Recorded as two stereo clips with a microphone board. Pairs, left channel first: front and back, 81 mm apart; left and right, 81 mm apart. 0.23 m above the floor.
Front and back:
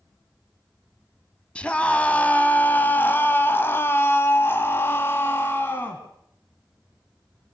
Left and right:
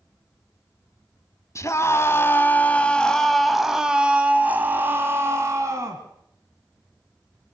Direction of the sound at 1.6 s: 70° left.